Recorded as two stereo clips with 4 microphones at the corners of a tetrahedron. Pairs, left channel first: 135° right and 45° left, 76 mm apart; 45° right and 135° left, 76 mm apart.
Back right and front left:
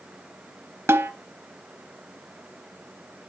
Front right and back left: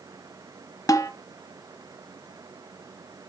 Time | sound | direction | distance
0.9 | a snare drum | 10° right | 0.6 m